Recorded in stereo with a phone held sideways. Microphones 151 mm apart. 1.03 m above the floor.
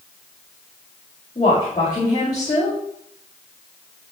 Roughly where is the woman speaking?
Left.